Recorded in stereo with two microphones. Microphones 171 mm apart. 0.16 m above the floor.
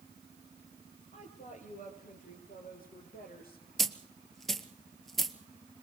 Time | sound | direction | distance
1.1 | a woman speaking | 40° left (ahead or behind) | 4.5 m
3.8 | a dropped coin | centre (ahead or behind) | 1.1 m